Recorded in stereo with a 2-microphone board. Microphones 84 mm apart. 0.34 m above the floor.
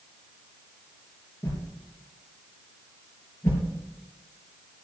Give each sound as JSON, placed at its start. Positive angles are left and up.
{"t": 1.4, "sound": "a whoosh", "side_deg": 30, "distance_m": 4.5}